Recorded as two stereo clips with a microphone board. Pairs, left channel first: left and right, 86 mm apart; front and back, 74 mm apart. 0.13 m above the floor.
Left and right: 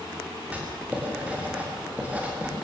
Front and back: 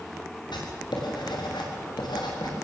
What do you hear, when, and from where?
0.5 s writing: 15° right, 5.5 m